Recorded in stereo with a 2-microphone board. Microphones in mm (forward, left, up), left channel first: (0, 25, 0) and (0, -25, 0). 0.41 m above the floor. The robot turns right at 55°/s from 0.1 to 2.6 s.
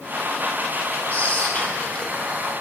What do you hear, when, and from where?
1.1 s whispering: 90° left, 1.4 m; by 2.4 s 160° left, 1.4 m